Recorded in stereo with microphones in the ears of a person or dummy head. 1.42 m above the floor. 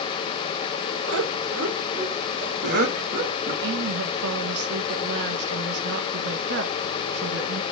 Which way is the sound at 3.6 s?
60° right (ahead or behind).